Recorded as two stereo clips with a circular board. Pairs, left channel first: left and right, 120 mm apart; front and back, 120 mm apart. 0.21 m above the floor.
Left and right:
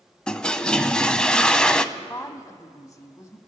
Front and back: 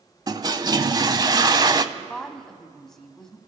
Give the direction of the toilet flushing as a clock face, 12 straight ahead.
6 o'clock.